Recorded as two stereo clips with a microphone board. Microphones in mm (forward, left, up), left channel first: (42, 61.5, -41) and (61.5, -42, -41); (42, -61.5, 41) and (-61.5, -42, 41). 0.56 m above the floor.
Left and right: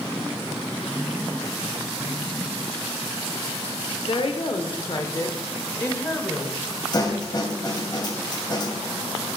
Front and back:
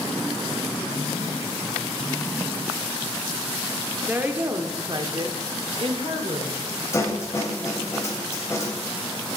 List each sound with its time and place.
4.1 s a woman speaking: 100° left, 1.5 m; by 6.6 s 175° left, 2 m
6.9 s a snare drum: 50° left, 2.5 m